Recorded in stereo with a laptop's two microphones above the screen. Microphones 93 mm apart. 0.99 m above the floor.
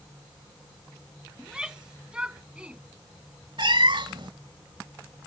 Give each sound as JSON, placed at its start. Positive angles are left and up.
{"t": 1.4, "sound": "a shout", "side_deg": -10}
{"t": 3.6, "sound": "a cat meowing", "side_deg": -65}